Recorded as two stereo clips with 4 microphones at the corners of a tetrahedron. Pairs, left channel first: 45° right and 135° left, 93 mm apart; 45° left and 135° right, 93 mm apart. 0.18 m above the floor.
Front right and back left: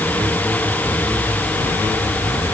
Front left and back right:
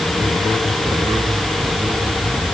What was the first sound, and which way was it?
Only background noise.